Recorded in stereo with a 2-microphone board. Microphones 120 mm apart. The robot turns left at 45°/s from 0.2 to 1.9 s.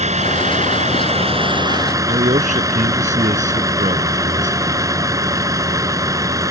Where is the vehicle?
75° right; by 6.5 s 150° right.